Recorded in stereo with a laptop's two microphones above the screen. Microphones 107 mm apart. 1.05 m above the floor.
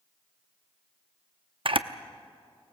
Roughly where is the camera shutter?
Right.